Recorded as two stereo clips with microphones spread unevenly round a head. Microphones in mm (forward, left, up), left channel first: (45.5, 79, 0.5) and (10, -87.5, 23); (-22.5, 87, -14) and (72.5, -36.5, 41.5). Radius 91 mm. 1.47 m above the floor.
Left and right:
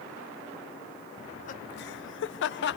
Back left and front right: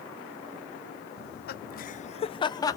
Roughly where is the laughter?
Behind left.